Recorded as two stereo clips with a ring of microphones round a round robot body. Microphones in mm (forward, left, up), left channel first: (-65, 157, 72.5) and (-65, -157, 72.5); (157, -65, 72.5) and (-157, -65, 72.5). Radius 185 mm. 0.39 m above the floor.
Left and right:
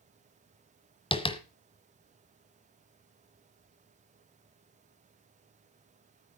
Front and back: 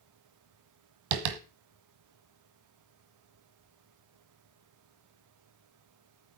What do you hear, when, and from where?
1.1 s tapping: 165° left, 1.6 m